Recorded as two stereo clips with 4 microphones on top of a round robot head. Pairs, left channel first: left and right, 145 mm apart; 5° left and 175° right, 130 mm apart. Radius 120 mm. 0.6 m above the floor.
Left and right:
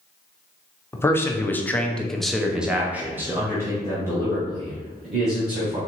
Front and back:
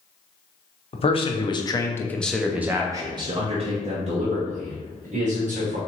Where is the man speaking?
20° left, 1.0 m; by 5.8 s 155° right, 1.9 m.